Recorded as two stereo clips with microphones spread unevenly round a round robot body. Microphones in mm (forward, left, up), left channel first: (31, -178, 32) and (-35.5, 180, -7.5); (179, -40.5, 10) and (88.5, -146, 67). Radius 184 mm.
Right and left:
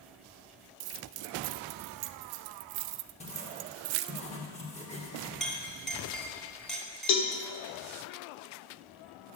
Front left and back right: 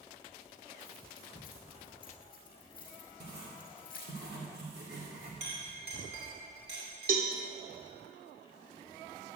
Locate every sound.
0.8 s keys jangling: 135° left, 0.6 m
3.2 s writing: 155° right, 2.5 m
5.4 s a clink: 170° right, 1.7 m
7.1 s a cowbell: 125° right, 1.5 m